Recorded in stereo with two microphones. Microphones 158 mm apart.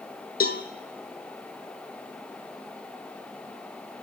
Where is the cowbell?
75° left (ahead or behind), 0.9 m.